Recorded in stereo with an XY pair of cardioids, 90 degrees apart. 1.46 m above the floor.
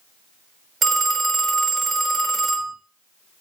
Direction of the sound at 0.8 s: 50° right.